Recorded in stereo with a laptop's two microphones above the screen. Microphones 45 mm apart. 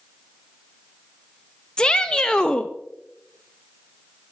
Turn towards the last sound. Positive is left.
turn(degrees=15)  # may be behind; listen again after turning